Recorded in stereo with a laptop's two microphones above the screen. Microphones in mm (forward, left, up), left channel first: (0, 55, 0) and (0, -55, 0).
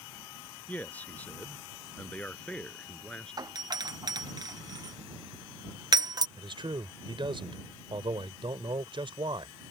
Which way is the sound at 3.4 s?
35° right (ahead or behind).